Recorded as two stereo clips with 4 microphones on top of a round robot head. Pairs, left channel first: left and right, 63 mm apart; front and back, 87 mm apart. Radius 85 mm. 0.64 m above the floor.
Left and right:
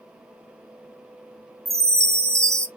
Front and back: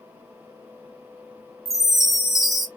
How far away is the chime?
About 1.5 m.